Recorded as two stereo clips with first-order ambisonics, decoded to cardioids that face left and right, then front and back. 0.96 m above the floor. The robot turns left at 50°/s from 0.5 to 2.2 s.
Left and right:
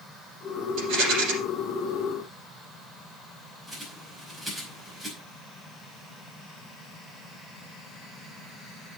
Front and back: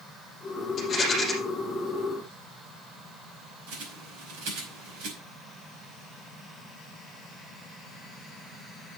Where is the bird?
170° right, 5 m.